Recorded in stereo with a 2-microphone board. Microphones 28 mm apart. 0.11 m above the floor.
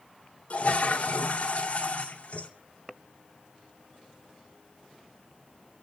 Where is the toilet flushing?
45° left (ahead or behind), 2.5 m.